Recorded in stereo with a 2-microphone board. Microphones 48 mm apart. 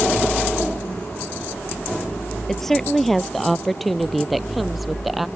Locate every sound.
2.5 s a woman speaking: 5° left (ahead or behind); by 5.3 s 5° right (ahead or behind)